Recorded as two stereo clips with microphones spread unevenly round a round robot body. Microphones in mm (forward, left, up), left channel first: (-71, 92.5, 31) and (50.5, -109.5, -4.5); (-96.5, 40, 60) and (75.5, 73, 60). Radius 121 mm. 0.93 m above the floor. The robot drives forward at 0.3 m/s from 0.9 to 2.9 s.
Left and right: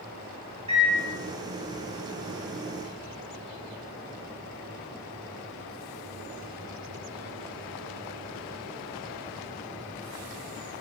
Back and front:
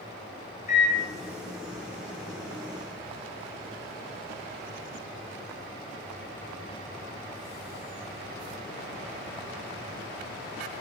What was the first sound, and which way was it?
A microwave, 120° right.